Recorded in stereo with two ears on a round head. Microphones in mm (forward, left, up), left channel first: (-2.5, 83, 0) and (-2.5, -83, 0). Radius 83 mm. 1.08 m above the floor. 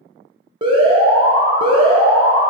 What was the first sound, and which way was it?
An alarm, 25° right (ahead or behind).